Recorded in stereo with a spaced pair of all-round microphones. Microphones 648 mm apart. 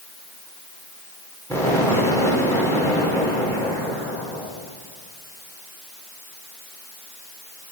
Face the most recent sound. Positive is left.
turn(degrees=5)  # may be behind; listen again after turning